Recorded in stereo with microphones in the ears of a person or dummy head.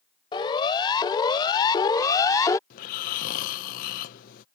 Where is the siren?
25° left (ahead or behind); by 2.6 s 20° left (ahead or behind).